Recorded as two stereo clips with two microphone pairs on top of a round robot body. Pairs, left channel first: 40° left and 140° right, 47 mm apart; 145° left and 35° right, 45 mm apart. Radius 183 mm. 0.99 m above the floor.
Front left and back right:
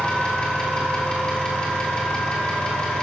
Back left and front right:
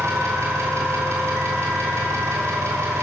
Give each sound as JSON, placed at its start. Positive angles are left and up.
{"t": 0.0, "sound": "an engine running", "azimuth_deg": -35, "distance_m": 2.5}